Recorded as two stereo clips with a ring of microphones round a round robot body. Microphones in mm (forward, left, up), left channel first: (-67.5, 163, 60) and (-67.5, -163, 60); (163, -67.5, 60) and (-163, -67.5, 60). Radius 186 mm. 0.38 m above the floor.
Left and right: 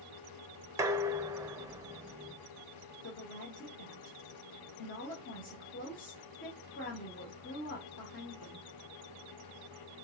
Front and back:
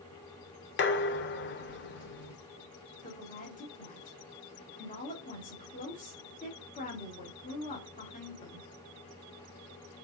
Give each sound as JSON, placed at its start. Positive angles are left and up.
{"t": 0.8, "sound": "dishes clattering", "azimuth_deg": -15, "distance_m": 0.8}
{"t": 3.0, "sound": "a woman speaking", "azimuth_deg": 55, "distance_m": 1.3}